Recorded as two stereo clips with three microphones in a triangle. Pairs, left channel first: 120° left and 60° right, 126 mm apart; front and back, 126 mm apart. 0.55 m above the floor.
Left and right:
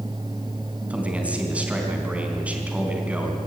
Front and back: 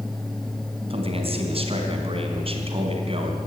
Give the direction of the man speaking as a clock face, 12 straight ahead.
5 o'clock.